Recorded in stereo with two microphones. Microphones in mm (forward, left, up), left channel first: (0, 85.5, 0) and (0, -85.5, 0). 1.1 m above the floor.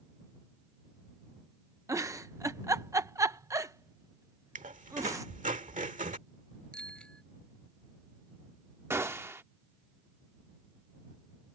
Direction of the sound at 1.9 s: 20° right (ahead or behind).